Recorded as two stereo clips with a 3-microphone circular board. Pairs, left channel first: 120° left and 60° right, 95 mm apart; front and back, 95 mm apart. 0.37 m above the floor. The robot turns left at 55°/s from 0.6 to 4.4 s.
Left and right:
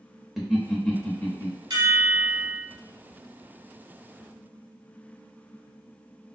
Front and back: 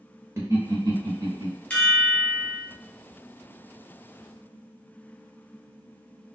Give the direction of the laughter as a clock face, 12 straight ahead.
5 o'clock.